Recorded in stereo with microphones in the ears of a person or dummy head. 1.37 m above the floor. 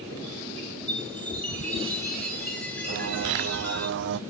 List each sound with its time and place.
0.9 s a chime: 10° left (ahead or behind), 4 m
2.9 s a bird: 65° right (ahead or behind), 0.6 m